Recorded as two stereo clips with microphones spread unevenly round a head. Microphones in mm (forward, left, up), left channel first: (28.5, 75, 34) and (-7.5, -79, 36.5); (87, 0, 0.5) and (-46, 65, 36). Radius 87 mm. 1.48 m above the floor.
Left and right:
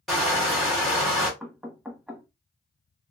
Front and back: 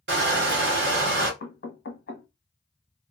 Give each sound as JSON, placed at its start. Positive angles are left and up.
{"t": 0.1, "sound": "crushing", "azimuth_deg": 165, "distance_m": 1.2}
{"t": 1.4, "sound": "knocking", "azimuth_deg": -20, "distance_m": 1.0}